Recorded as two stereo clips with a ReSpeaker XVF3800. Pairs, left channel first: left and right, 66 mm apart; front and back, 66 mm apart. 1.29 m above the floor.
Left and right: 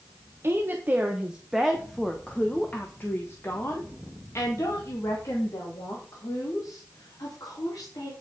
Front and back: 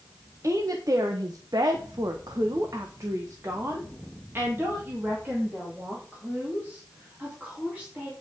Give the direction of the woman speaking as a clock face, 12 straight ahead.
5 o'clock.